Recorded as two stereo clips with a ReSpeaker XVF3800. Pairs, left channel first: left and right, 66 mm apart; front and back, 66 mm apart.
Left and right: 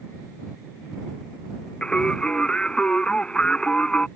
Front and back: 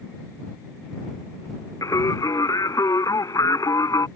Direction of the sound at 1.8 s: 15° left.